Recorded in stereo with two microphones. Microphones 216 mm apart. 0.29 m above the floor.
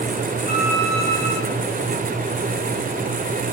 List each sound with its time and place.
0.5 s a violin: 30° right (ahead or behind), 9.5 m